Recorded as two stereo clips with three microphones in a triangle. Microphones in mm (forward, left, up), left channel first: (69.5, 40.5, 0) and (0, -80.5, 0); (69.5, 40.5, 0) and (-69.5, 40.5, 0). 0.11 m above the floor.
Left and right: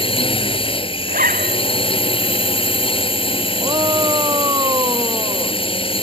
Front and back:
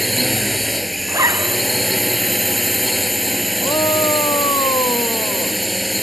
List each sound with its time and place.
0.0 s a drone: 90° left
1.1 s a zipper: 110° right
3.6 s a shout: 60° right